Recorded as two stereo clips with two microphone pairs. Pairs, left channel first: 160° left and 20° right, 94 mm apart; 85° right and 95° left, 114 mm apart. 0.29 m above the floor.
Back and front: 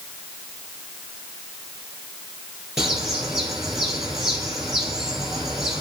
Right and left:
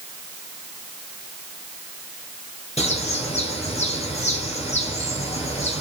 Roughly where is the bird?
Right.